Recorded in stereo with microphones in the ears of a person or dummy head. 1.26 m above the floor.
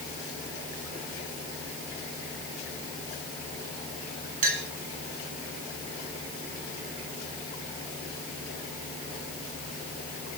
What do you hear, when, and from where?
4.4 s a clink: 40° right (ahead or behind), 2.5 m